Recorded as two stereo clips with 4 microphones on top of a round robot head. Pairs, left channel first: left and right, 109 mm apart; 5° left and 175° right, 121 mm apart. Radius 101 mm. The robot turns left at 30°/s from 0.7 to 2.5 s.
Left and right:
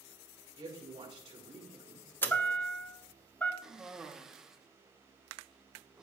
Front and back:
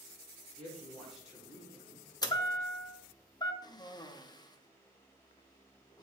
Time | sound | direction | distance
0.6 | a woman speaking | 75° right | 4 m
2.2 | a chime | 30° left | 1.2 m
3.6 | a cough | 10° right | 1.1 m